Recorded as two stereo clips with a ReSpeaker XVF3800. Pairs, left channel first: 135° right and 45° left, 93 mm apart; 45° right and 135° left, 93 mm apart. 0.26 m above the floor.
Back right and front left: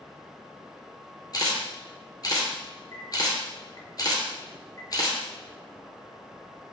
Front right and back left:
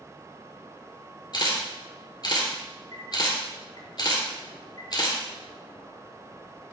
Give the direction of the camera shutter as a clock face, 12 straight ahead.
3 o'clock.